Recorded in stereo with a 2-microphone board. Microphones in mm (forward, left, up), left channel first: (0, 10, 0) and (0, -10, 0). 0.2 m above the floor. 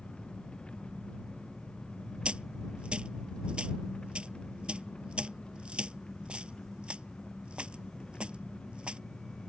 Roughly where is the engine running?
Left.